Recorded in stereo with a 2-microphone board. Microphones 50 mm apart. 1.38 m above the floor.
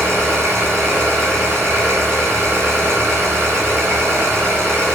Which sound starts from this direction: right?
An engine running, at 0.0 s.